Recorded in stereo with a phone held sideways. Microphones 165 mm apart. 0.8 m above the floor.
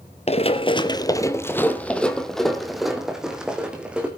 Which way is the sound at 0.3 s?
40° left (ahead or behind).